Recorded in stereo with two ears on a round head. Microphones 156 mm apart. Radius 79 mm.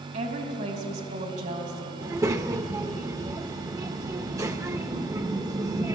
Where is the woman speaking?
40° right (ahead or behind), 3.5 m.